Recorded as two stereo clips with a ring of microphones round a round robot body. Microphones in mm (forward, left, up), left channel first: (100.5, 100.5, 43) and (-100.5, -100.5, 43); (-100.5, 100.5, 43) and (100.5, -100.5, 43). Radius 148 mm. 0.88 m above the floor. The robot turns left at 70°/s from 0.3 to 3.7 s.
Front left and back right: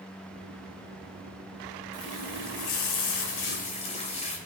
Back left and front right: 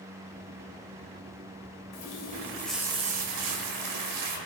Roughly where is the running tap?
Left.